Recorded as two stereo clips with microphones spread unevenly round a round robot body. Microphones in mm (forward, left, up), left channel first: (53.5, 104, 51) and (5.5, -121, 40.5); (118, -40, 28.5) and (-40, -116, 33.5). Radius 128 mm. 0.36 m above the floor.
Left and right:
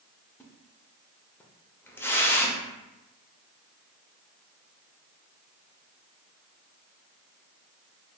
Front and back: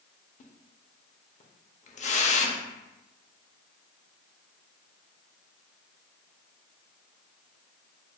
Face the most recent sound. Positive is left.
turn(degrees=0)